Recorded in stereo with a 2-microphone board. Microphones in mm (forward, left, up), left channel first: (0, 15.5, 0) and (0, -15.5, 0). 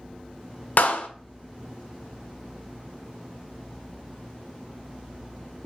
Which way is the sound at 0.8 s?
65° left (ahead or behind).